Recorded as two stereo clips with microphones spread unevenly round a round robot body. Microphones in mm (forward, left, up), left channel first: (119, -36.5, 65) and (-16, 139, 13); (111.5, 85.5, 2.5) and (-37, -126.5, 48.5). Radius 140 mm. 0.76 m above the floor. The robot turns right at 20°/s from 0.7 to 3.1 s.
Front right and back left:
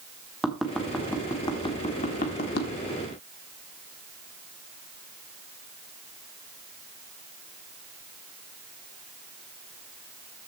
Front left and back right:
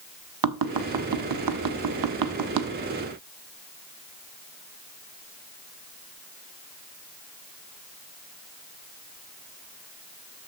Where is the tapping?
145° right, 1.3 m; by 2.7 s 105° right, 1.3 m.